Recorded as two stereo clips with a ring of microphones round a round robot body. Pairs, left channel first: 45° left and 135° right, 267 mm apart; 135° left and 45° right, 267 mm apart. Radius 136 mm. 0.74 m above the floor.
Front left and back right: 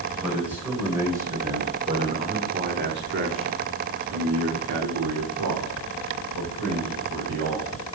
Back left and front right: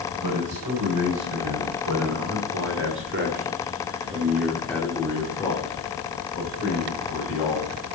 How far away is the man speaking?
About 4.5 m.